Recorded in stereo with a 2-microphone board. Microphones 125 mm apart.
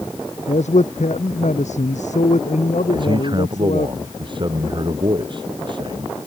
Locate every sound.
0.5 s a man speaking: 70° left (ahead or behind); by 3.9 s 75° left (ahead or behind)
2.9 s a man speaking: 40° right (ahead or behind)